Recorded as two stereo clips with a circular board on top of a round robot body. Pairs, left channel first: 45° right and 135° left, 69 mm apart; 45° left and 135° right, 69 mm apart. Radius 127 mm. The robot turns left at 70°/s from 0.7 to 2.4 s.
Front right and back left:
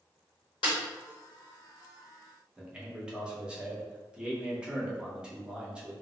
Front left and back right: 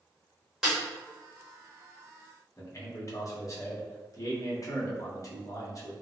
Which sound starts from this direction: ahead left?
A man speaking, at 2.6 s.